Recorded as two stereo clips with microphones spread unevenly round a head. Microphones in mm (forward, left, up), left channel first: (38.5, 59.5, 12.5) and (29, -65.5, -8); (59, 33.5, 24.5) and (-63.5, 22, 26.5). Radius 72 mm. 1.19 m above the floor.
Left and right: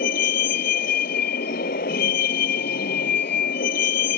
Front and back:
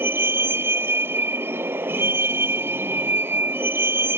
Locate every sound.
0.0 s a vehicle: 115° left